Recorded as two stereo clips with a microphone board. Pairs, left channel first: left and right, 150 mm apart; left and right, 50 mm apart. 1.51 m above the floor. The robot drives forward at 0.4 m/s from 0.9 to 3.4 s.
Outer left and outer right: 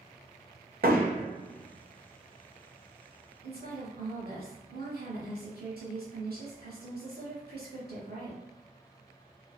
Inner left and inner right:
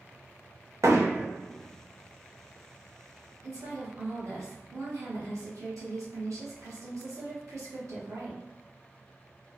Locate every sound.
0.8 s hammering: 65° right (ahead or behind), 0.6 m; by 1.3 s 55° right (ahead or behind), 0.7 m
3.4 s a woman speaking: 80° right, 0.9 m